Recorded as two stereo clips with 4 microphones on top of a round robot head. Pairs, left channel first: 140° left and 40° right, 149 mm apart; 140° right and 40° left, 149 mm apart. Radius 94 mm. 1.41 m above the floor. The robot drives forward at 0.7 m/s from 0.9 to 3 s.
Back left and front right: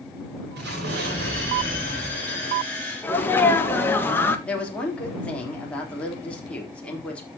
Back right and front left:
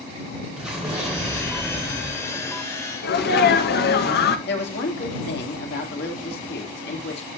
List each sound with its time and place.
0.6 s an explosion: 45° right, 5.5 m; by 2.7 s 55° right, 4.5 m
3.0 s a sneeze: 145° right, 2.0 m
4.5 s a woman speaking: 140° right, 4 m